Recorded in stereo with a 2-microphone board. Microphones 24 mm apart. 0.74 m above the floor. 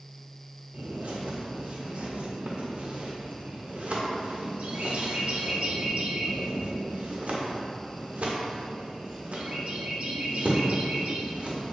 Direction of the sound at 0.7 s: 60° right (ahead or behind).